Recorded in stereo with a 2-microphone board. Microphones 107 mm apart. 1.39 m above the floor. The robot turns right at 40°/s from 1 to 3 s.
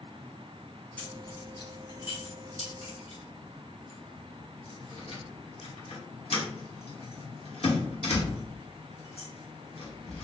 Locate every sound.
1.0 s keys jangling: 15° left (ahead or behind), 1.2 m; by 10.2 s 70° left (ahead or behind), 1.2 m